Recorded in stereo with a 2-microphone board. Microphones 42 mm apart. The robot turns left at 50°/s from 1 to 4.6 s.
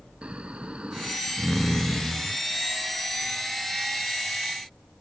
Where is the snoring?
155° right; by 2.4 s 130° left.